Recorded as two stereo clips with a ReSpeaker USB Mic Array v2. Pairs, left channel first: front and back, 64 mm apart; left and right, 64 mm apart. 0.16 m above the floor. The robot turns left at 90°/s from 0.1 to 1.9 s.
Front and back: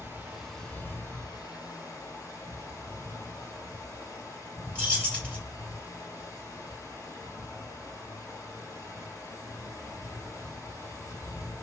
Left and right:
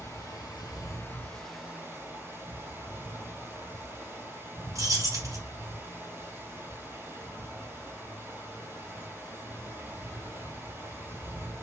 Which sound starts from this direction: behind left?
Running water, at 0.0 s.